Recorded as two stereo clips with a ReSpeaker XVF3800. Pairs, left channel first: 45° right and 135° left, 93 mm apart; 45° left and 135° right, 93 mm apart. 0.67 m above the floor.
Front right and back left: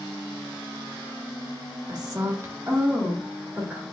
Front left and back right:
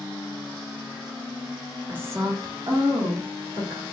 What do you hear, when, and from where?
1.9 s a woman speaking: 155° left, 1.1 m; by 3.8 s 145° right, 2 m